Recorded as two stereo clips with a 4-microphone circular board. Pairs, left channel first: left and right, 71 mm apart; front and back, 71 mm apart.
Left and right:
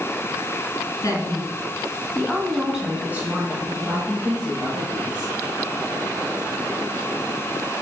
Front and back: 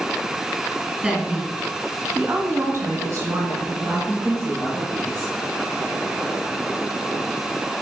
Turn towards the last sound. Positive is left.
turn(degrees=-120)